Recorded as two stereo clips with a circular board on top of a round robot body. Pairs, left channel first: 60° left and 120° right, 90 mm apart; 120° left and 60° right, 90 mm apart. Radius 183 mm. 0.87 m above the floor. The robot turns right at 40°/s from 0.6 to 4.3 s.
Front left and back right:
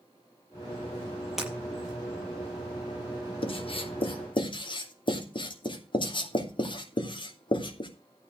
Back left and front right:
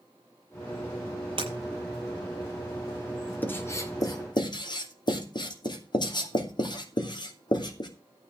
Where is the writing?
50° left, 3 m; by 7.9 s 85° left, 3 m.